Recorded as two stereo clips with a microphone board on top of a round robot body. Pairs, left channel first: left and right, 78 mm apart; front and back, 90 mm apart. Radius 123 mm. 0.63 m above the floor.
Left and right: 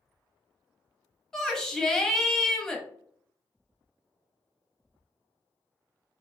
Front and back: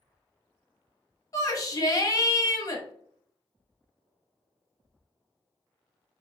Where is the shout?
10° left, 1.1 m.